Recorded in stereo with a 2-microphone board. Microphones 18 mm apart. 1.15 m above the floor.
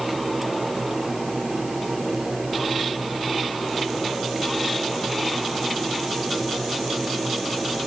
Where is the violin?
I don't hear a violin.